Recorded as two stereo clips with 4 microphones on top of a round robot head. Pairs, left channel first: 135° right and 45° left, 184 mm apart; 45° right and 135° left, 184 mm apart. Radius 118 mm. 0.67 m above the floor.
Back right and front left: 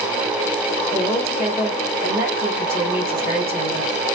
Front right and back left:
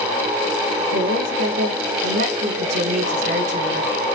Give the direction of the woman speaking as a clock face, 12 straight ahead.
8 o'clock.